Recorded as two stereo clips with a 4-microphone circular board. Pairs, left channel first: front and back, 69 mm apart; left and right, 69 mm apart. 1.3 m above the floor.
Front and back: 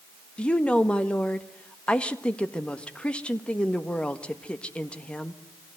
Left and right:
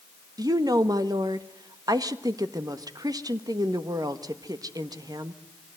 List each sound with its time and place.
0.4 s a woman speaking: 75° right, 1.4 m